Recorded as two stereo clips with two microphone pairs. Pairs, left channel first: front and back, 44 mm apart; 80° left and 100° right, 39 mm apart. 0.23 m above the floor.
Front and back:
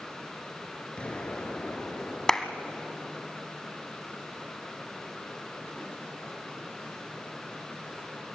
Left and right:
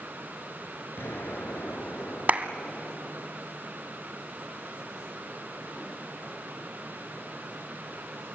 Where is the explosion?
60° left, 3.5 m.